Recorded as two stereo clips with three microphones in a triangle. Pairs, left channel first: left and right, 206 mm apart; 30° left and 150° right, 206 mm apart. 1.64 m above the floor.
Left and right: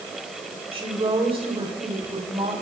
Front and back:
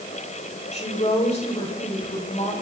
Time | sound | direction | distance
0.7 | a woman speaking | 25° right | 7 m